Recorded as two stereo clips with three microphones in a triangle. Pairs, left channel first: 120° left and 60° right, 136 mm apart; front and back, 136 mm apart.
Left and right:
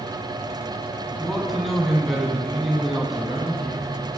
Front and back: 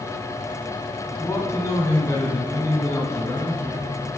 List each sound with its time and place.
1.2 s a man speaking: 30° left, 1.0 m